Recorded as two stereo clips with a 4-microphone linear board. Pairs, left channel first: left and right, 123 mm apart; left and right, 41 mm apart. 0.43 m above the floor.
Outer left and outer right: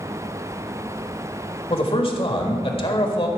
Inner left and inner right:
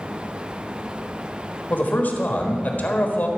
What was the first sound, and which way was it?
A man speaking, 45° left (ahead or behind).